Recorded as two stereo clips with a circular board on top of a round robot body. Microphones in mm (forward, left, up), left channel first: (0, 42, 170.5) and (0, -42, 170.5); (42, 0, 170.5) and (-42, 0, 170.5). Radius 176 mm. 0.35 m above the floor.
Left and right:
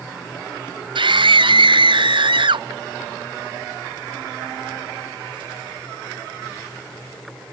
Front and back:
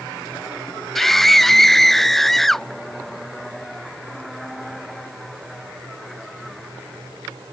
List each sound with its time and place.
0.9 s a scream: 85° right